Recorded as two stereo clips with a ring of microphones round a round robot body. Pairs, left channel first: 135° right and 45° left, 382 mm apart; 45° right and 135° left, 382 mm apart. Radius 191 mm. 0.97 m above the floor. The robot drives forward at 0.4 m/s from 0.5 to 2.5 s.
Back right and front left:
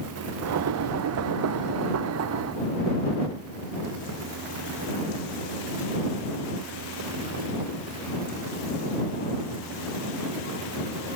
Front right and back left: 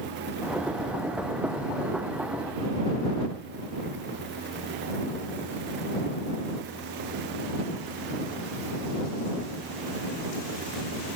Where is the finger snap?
No finger snap in this recording.